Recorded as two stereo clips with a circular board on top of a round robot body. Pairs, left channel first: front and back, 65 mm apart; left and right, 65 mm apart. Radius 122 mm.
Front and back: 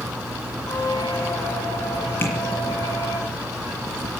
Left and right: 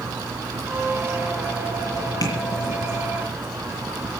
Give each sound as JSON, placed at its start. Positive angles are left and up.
{"t": 0.7, "sound": "a squeak", "azimuth_deg": -30, "distance_m": 5.0}
{"t": 2.2, "sound": "tapping", "azimuth_deg": 60, "distance_m": 6.5}